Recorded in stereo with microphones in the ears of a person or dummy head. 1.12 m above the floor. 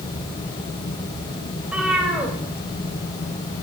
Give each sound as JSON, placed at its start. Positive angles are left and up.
{"t": 1.6, "sound": "a cat meowing", "side_deg": -5, "distance_m": 2.5}